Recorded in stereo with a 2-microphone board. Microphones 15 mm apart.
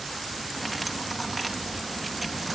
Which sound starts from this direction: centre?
Cutlery clinking, at 0.6 s.